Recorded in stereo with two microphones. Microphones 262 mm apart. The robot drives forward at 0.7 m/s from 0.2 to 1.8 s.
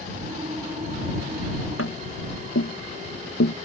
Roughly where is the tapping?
Left.